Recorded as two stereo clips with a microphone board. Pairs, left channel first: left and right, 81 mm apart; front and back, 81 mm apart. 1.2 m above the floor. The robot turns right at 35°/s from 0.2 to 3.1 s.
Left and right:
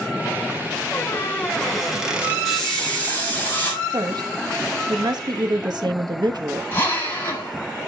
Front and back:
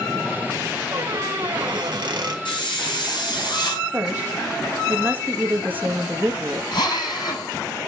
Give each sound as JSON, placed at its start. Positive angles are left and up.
{"t": 0.9, "sound": "a squeak", "azimuth_deg": 150, "distance_m": 2.0}
{"t": 2.5, "sound": "a hiss", "azimuth_deg": 0, "distance_m": 6.0}
{"t": 3.9, "sound": "a woman speaking", "azimuth_deg": -115, "distance_m": 1.6}
{"t": 6.7, "sound": "a drill", "azimuth_deg": 30, "distance_m": 7.0}